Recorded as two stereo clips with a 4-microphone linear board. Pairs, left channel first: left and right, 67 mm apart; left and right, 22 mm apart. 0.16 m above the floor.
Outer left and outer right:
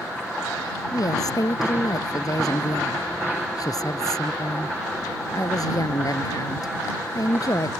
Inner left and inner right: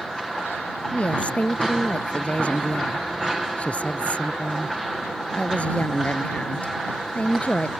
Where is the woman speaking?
65° left (ahead or behind).